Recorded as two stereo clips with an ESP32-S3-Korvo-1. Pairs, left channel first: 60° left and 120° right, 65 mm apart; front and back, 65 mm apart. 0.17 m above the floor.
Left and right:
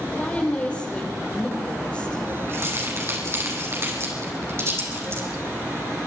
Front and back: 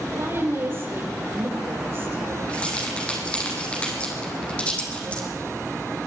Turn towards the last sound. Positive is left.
turn(degrees=-70)